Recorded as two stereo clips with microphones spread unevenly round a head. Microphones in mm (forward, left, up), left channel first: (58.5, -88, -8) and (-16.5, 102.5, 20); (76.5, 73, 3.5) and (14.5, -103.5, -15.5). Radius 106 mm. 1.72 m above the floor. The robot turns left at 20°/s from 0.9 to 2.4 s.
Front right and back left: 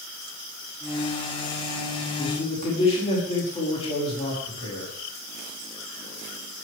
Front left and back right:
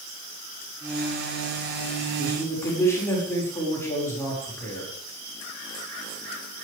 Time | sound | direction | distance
2.2 | a man speaking | straight ahead | 6 m